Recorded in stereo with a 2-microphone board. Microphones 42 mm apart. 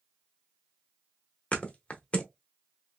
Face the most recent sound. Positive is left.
turn(degrees=35)  # may be behind; listen again after turning